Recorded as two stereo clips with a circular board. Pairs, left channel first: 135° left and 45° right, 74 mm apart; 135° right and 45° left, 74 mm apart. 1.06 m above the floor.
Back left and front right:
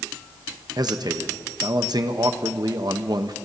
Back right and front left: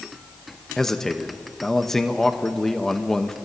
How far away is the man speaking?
About 1.0 m.